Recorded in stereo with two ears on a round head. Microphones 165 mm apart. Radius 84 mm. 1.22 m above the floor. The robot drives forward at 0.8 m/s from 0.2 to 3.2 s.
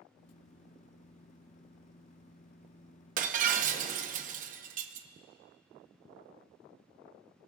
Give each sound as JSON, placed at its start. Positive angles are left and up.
{"t": 3.2, "sound": "breaking glass", "side_deg": -45, "distance_m": 0.8}